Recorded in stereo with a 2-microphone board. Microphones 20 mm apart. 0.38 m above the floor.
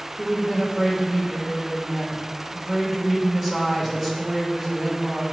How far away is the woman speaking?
About 1.0 m.